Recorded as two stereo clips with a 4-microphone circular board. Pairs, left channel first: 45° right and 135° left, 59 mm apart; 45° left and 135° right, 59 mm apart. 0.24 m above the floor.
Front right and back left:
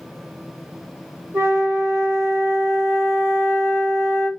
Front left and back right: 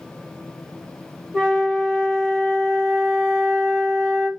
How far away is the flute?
About 1.4 m.